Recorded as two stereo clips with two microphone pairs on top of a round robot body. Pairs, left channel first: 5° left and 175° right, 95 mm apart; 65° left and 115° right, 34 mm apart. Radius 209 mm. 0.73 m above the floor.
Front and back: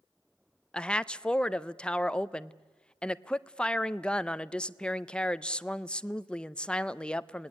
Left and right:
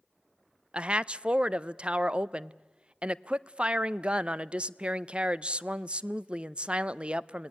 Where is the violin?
No violin in this recording.